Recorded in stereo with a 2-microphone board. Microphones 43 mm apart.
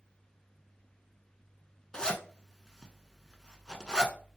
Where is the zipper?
15° left (ahead or behind), 0.6 m.